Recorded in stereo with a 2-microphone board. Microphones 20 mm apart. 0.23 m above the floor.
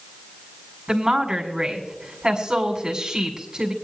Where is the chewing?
I don't hear chewing.